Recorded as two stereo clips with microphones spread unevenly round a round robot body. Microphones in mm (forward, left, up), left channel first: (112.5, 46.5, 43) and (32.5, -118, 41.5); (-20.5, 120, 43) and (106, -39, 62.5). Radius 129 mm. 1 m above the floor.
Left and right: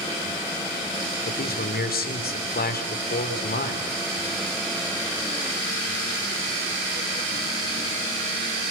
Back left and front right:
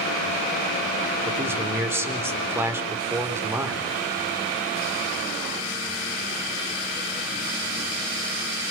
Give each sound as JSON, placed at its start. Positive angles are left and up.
{"t": 1.2, "sound": "a man speaking", "azimuth_deg": 30, "distance_m": 4.0}